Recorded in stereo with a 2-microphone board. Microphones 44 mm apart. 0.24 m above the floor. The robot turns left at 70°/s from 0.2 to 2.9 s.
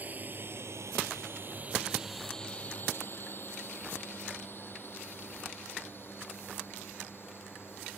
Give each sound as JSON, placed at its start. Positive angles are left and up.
{"t": 0.0, "sound": "a drone", "side_deg": -40}